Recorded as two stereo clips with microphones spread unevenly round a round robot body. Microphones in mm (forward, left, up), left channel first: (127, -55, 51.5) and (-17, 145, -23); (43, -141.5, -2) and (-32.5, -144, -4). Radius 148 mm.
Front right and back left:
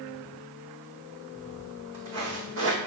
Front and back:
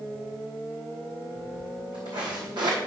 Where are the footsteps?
160° left, 3 m; by 2.8 s 175° right, 1.7 m.